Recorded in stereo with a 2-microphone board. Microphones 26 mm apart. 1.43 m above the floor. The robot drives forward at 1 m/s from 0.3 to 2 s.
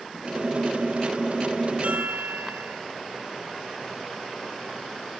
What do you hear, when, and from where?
1.8 s a chime: 60° right (ahead or behind), 0.9 m; by 2.8 s 65° right (ahead or behind), 0.8 m